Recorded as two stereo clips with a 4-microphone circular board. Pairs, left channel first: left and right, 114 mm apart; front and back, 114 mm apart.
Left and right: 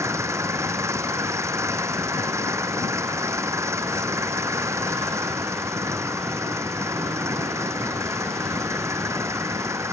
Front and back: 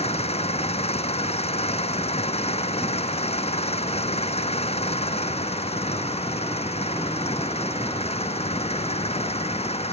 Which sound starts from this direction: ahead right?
An engine running, at 0.0 s.